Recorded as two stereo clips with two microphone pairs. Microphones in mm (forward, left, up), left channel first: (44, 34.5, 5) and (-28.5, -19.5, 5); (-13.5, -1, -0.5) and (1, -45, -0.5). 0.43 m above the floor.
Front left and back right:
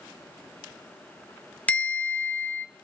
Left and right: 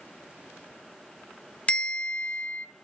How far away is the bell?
About 0.7 m.